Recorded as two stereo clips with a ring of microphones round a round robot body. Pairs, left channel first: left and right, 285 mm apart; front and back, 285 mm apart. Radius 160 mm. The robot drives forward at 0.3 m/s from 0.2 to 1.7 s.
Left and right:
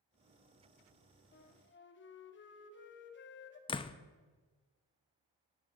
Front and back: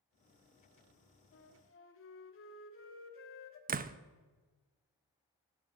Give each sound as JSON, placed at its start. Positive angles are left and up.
{"t": 1.3, "sound": "a flute", "azimuth_deg": 40, "distance_m": 1.7}
{"t": 3.7, "sound": "a door slam", "azimuth_deg": 150, "distance_m": 0.6}